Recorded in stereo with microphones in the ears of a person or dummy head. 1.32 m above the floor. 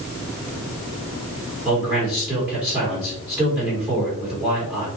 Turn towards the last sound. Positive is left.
turn(degrees=-5)  # may be behind; listen again after turning